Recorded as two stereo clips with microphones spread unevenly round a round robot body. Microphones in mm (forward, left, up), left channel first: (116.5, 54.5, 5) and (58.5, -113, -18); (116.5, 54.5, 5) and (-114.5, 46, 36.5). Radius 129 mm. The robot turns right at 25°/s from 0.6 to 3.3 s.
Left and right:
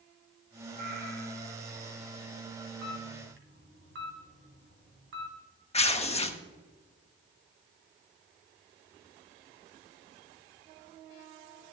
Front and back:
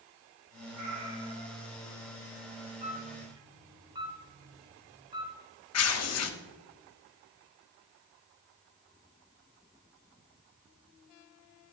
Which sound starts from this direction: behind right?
A camera shutter, at 2.8 s.